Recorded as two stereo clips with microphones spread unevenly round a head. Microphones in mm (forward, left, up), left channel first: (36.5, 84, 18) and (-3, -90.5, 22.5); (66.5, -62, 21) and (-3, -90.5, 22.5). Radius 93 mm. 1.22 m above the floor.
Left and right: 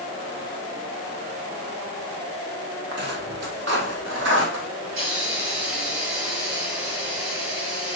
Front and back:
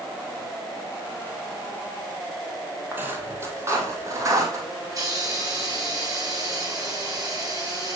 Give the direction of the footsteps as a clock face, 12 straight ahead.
3 o'clock.